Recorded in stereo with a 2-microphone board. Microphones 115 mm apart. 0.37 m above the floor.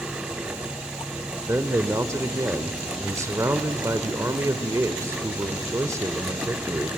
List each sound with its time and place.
1.4 s a man speaking: 25° right (ahead or behind), 0.8 m